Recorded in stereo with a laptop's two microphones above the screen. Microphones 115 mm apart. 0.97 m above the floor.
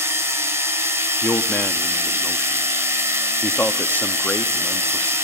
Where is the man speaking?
15° left (ahead or behind), 1.4 m.